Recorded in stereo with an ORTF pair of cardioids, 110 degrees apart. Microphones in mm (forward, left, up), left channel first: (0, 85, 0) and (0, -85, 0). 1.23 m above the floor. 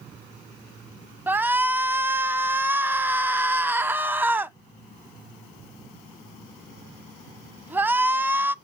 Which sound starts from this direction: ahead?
A shout, at 1.3 s.